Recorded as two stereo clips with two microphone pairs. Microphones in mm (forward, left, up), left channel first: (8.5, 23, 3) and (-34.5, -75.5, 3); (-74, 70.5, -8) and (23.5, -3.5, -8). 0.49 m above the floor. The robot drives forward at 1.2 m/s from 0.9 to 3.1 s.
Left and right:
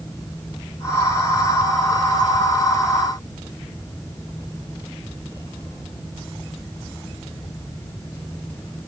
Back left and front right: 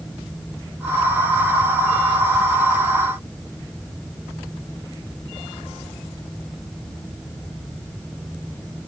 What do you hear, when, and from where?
Only background noise.